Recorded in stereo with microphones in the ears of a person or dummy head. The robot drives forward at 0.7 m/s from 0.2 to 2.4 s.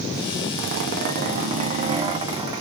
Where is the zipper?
55° right (ahead or behind), 0.8 m; by 2.6 s 20° right (ahead or behind), 1.7 m.